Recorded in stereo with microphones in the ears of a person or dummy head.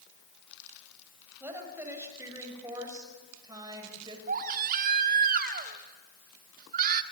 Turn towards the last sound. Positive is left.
turn(degrees=-45)  # may be behind; listen again after turning